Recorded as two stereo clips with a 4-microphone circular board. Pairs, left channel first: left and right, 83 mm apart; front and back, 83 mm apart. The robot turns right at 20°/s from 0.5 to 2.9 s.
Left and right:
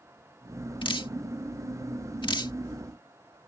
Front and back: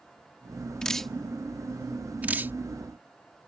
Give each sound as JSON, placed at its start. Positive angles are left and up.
{"t": 0.8, "sound": "dripping", "azimuth_deg": 80}